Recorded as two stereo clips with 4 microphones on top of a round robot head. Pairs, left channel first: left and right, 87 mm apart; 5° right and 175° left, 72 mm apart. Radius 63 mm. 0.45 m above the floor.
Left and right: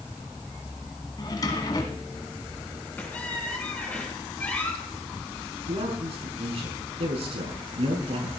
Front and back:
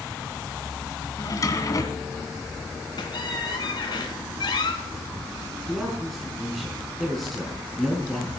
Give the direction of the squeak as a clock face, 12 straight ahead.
12 o'clock.